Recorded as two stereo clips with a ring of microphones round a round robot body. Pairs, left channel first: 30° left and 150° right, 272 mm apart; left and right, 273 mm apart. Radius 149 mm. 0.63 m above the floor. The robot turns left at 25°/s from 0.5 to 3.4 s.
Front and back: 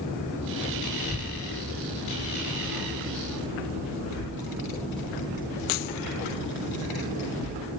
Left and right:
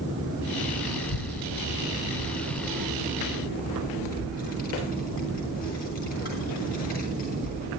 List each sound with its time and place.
1.0 s a child speaking: 115° left, 3.5 m; by 7.7 s 55° left, 3.5 m